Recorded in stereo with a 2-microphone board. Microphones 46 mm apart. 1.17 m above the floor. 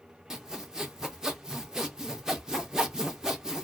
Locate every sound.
0.3 s sawing: 10° right (ahead or behind), 0.6 m